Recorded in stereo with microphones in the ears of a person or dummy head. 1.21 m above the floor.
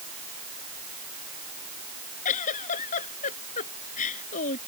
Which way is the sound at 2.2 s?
40° left (ahead or behind).